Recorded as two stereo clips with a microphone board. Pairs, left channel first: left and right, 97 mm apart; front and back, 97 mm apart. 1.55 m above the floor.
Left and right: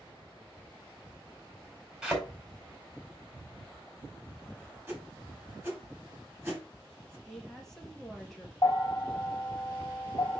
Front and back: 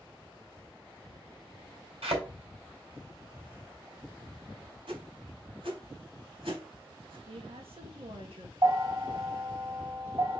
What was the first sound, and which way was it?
A thud, 175° right.